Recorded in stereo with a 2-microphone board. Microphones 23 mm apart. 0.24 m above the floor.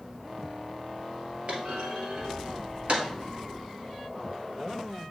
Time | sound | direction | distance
1.5 | a clunk | 50° right (ahead or behind) | 2.0 m